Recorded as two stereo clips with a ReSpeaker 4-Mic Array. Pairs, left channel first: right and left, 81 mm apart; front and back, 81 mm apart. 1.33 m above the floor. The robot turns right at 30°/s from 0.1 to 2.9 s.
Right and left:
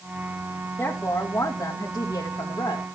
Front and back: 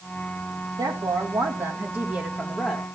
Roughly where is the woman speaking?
Behind.